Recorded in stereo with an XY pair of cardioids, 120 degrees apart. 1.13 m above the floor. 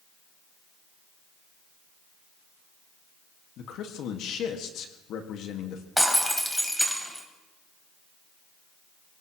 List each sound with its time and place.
3.6 s a man speaking: 70° left, 1.8 m
6.0 s breaking glass: 5° left, 3 m